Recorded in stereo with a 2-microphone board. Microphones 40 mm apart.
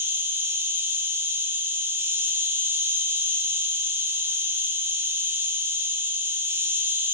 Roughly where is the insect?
Right.